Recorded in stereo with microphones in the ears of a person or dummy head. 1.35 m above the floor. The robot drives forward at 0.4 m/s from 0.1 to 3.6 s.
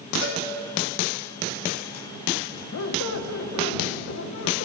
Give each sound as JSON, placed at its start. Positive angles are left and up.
{"t": 0.2, "sound": "a cowbell", "side_deg": 80, "distance_m": 3.0}
{"t": 2.7, "sound": "a squeak", "side_deg": 70, "distance_m": 0.6}